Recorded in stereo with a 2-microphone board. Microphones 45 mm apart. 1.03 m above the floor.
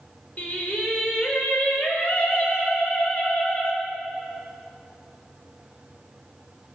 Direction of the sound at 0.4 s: 45° left (ahead or behind).